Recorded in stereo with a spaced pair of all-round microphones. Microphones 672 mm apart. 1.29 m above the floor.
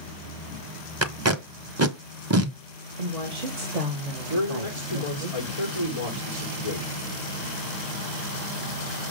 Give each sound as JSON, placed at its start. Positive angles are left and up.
{"t": 1.0, "sound": "tape being pulled", "side_deg": -25, "distance_m": 0.8}
{"t": 3.0, "sound": "a woman speaking", "side_deg": -65, "distance_m": 1.5}
{"t": 4.3, "sound": "a man speaking", "side_deg": -65, "distance_m": 3.5}